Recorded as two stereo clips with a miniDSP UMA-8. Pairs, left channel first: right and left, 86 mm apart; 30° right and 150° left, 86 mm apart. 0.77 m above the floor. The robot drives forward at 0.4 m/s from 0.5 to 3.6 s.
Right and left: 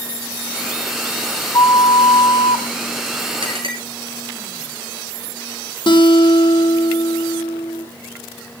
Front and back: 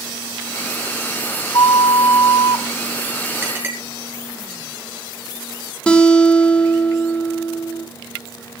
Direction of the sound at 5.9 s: 110° right.